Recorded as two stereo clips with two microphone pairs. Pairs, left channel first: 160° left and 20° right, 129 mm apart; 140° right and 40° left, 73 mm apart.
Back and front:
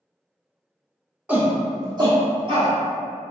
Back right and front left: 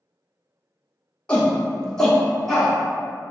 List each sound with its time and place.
1.3 s a shout: 85° right, 0.8 m; by 2.7 s 55° right, 1.4 m